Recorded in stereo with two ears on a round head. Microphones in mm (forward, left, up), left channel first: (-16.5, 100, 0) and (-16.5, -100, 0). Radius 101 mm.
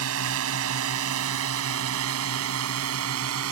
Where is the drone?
75° right (ahead or behind).